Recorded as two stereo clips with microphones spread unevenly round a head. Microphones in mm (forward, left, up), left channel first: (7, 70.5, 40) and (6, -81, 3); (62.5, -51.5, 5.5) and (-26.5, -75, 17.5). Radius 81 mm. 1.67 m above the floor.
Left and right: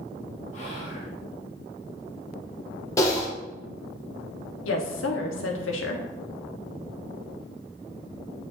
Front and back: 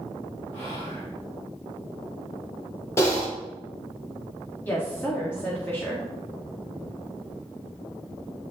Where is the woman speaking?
95° left, 1.3 m.